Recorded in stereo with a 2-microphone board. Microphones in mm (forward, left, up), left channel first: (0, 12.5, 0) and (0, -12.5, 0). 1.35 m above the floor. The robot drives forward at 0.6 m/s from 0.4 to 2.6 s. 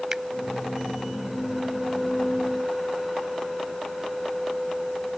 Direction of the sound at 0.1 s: 25° right (ahead or behind).